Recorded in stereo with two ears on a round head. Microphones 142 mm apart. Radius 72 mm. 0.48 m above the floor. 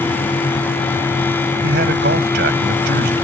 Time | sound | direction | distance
1.6 | a man speaking | 75° right (ahead or behind) | ?